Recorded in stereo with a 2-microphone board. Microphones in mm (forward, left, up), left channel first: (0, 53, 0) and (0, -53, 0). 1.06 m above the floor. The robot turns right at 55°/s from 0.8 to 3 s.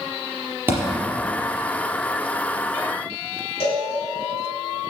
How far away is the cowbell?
About 4 m.